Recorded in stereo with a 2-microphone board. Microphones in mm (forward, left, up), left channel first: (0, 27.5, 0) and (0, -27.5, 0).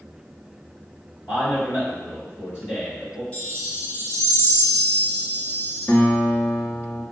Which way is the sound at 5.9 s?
50° left (ahead or behind).